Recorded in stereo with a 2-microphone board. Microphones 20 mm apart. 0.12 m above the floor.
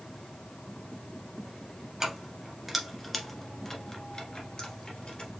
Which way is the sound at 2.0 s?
20° right (ahead or behind).